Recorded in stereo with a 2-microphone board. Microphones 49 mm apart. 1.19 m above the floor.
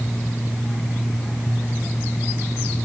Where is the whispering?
I don't hear whispering.